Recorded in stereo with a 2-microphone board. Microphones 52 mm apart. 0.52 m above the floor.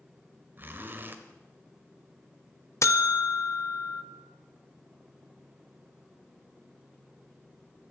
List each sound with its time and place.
0.6 s a zipper: 40° right (ahead or behind), 1.0 m
2.8 s a buzzer: 65° left (ahead or behind), 0.7 m